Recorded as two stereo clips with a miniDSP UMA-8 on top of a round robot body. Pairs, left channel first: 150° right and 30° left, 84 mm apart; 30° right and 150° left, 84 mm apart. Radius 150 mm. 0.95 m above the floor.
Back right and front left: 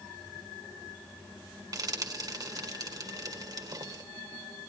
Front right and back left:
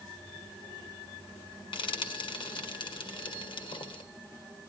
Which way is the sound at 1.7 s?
15° right.